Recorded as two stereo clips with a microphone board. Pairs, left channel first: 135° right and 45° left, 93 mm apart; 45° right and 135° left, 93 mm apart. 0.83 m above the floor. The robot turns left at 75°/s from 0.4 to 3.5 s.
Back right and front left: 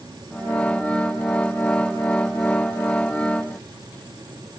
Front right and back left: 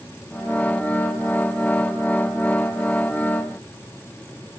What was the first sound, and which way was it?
Only background noise.